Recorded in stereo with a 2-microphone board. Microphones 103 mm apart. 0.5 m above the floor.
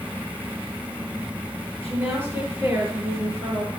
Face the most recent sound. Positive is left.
turn(degrees=-25)  # may be behind; listen again after turning